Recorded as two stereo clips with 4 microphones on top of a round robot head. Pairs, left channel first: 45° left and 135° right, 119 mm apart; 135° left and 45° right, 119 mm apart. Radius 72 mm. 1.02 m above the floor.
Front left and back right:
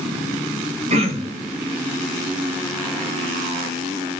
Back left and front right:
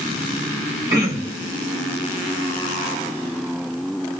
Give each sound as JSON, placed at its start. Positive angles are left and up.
{"t": 0.9, "sound": "throat clearing", "azimuth_deg": -110, "distance_m": 1.5}